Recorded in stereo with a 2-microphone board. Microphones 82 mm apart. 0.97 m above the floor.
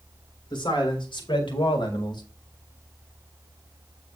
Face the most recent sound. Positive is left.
turn(degrees=60)  # may be behind; listen again after turning